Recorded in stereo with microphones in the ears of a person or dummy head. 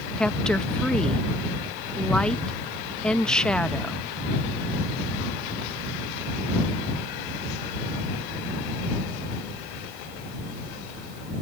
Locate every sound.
0.2 s a woman speaking: 5° left (ahead or behind)